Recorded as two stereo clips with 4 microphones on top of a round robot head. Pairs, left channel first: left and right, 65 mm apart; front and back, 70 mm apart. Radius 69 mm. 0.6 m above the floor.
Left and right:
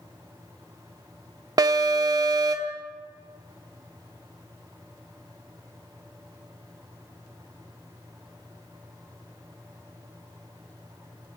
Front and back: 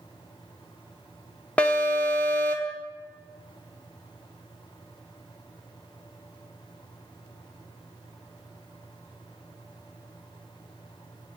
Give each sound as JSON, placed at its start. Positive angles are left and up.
{"t": 1.6, "sound": "an alarm", "azimuth_deg": -75, "distance_m": 1.1}